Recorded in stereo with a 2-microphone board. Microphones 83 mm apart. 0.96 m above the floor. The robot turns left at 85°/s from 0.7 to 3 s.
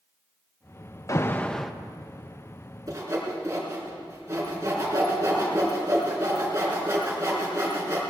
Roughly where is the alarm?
Ahead left.